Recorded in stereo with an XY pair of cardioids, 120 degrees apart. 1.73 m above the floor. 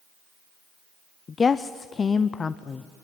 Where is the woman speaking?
35° left, 0.6 m.